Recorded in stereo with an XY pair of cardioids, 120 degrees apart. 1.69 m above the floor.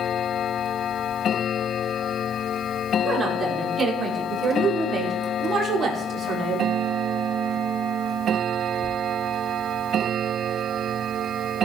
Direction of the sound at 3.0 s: 25° right.